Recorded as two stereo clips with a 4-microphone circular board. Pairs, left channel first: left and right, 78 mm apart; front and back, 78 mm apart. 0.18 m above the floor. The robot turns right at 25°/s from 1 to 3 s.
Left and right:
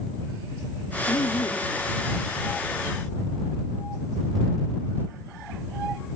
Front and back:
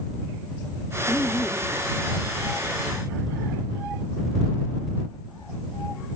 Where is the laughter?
70° left; by 1.8 s 85° left.